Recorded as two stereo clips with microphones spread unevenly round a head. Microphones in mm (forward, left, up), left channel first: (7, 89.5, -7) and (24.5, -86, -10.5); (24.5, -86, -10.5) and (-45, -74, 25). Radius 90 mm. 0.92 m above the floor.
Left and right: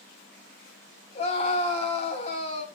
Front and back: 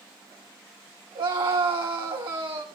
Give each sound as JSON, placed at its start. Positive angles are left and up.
{"t": 1.1, "sound": "a scream", "azimuth_deg": 155, "distance_m": 6.0}